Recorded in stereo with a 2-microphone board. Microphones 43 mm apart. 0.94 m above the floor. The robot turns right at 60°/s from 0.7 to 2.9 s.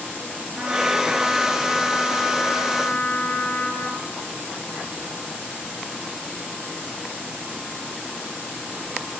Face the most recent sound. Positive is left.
turn(degrees=95)